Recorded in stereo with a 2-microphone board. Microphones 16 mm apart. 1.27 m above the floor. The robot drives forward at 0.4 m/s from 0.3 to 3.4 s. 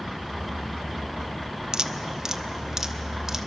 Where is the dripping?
40° right (ahead or behind), 0.7 m; by 3.5 s 20° right (ahead or behind), 1.2 m.